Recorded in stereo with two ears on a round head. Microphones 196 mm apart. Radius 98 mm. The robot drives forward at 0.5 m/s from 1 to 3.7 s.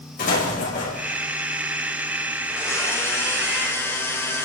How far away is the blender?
About 2.5 m.